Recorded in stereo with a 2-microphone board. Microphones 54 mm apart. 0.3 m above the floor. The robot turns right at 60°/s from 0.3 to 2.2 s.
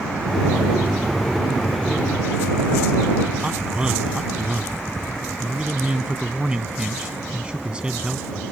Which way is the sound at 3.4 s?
20° right (ahead or behind).